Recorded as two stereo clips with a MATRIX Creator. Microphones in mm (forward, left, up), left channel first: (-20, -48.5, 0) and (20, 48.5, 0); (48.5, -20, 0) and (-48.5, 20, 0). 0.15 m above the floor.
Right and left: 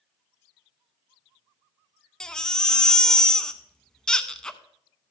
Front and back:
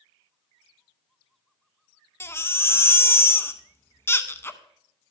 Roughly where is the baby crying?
Ahead right.